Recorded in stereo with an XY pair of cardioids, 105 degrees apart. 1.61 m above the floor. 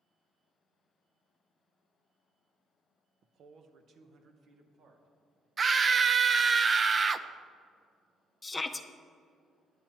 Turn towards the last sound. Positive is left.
turn(degrees=20)